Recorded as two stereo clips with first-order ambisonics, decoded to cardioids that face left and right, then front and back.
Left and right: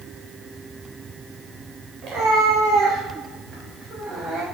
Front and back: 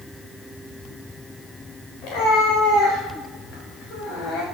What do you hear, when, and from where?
2.0 s a cat meowing: 30° right, 5 m; by 4.4 s 10° right, 5.5 m